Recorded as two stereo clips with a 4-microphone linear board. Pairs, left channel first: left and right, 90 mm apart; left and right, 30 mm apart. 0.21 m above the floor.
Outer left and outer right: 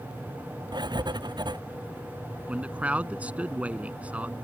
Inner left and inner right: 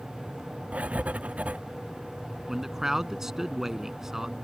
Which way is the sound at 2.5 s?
15° right (ahead or behind).